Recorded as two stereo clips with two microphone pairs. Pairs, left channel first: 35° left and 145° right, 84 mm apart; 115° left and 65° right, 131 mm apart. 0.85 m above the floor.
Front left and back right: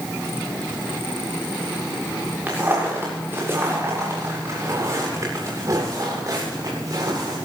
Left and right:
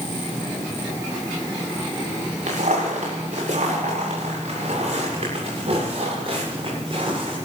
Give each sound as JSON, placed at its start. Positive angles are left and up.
{"t": 2.5, "sound": "footsteps", "azimuth_deg": -80, "distance_m": 7.5}